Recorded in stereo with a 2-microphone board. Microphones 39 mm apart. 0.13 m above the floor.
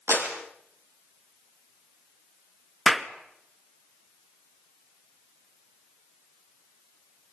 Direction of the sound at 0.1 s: 75° right (ahead or behind).